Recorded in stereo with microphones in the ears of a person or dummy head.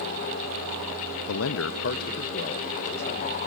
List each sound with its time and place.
1.3 s a man speaking: 80° left, 0.6 m; by 3.4 s 25° left (ahead or behind), 1.7 m